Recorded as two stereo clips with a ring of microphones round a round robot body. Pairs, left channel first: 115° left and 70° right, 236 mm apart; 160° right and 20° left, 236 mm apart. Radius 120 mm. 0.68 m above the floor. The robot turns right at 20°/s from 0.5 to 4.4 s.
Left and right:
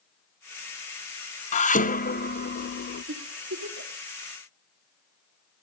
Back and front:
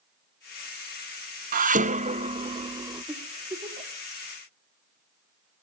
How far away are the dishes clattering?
About 0.6 m.